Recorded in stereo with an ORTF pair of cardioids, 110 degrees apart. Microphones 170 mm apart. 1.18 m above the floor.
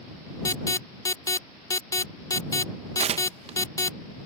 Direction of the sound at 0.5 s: 20° left.